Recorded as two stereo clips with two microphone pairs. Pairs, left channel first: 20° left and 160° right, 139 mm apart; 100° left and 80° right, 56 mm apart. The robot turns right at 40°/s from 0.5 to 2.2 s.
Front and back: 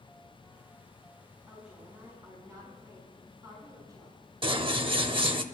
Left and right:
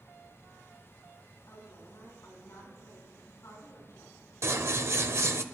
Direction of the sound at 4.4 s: 115° right.